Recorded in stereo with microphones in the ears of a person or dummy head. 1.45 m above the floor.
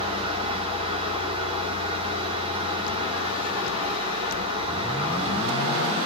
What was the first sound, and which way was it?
A fan, 35° right (ahead or behind).